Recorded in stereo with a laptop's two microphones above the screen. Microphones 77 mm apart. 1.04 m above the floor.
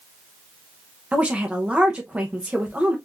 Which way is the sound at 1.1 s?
15° right (ahead or behind).